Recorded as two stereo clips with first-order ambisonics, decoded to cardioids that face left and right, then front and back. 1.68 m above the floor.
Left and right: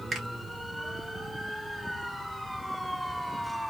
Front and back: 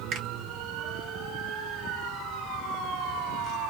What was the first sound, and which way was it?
A finger snap, 160° right.